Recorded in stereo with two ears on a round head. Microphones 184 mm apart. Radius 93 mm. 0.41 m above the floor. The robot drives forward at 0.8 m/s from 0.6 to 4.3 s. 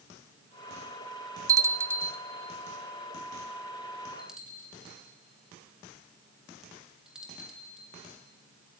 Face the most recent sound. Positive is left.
turn(degrees=-5)  # may be behind; listen again after turning